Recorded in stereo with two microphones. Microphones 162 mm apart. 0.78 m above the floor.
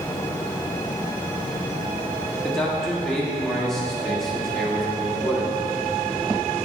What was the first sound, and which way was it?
A man speaking, 5° left (ahead or behind).